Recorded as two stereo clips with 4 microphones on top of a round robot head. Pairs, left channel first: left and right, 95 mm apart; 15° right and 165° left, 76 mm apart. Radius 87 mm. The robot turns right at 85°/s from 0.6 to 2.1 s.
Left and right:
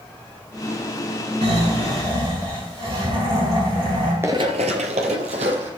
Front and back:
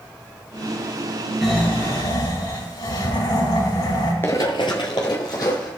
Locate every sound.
1.4 s snoring: 105° right, 4 m; by 4.1 s 45° right, 4 m
4.2 s running footsteps: 45° right, 0.8 m; by 5.7 s 65° right, 2 m